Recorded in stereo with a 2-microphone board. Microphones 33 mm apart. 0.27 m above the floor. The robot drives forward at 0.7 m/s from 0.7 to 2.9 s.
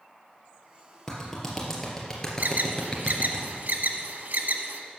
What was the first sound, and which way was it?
A clap, 10° left (ahead or behind).